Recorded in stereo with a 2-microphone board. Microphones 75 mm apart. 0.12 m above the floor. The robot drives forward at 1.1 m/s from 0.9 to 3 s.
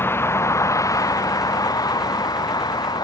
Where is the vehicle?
30° left (ahead or behind); by 3.0 s 65° left (ahead or behind).